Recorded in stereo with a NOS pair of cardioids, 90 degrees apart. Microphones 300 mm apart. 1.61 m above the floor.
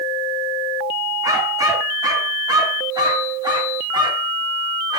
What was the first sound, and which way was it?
A dog barking, 10° right.